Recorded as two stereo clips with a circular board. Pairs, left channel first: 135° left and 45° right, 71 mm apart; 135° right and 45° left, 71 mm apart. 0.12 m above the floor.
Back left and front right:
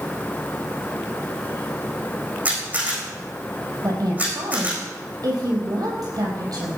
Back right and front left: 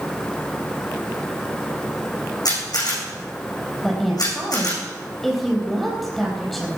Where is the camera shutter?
115° right, 7 m.